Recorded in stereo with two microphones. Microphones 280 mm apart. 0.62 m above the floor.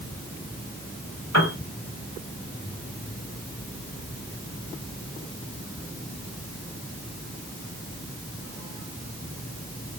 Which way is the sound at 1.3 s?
70° left (ahead or behind).